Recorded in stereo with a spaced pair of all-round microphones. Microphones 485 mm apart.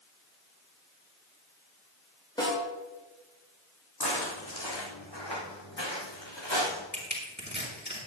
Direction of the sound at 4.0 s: 50° left (ahead or behind).